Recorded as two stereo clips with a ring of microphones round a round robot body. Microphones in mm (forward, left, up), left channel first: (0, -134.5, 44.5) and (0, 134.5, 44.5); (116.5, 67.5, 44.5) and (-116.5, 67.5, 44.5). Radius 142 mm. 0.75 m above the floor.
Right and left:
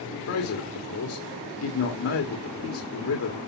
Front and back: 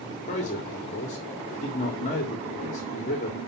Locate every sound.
0.3 s a man speaking: 60° right, 1.7 m